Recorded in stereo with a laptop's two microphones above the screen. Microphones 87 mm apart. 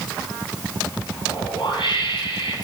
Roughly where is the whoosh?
Left.